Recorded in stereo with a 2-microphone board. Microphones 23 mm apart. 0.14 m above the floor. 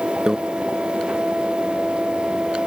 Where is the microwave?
35° right (ahead or behind).